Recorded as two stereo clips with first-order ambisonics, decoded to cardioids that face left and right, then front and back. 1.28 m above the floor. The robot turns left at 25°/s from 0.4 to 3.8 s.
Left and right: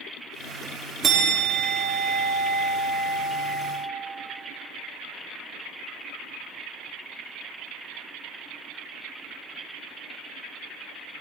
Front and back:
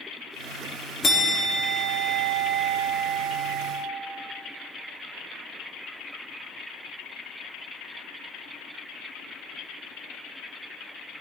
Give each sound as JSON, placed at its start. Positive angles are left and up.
{"t": 1.0, "sound": "a bell", "azimuth_deg": -50, "distance_m": 0.8}